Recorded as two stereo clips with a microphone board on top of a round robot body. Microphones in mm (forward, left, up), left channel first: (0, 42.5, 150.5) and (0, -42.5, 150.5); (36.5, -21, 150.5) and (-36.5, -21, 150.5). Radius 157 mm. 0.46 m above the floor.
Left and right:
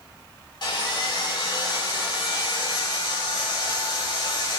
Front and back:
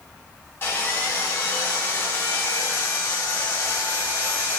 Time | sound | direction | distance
0.6 | sawing | 55° left | 4 m